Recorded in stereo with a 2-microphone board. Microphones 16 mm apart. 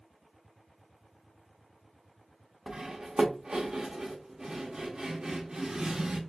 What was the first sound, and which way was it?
Cutlery clinking, 50° right (ahead or behind).